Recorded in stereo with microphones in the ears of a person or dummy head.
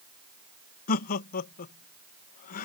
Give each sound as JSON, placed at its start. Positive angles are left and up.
{"t": 0.9, "sound": "laughter", "side_deg": 45}